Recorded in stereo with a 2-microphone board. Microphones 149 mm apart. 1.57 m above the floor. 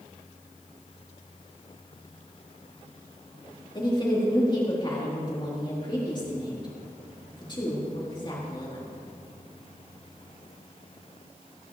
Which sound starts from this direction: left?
A woman speaking, at 3.8 s.